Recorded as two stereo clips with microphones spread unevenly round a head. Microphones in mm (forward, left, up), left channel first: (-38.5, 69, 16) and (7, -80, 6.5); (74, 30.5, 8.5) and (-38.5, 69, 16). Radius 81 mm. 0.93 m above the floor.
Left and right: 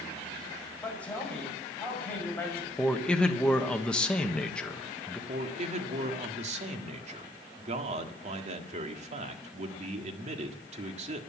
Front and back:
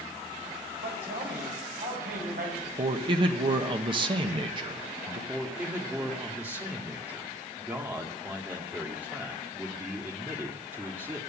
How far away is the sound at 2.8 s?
About 1.1 m.